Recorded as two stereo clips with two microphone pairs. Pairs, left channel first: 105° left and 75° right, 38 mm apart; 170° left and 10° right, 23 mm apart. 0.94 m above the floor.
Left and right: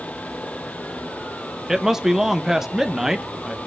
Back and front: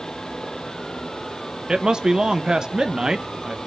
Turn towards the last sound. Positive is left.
turn(degrees=-5)